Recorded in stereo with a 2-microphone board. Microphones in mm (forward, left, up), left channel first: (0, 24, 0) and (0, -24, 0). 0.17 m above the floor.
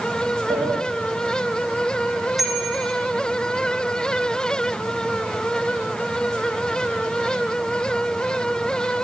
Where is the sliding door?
85° right, 5 m.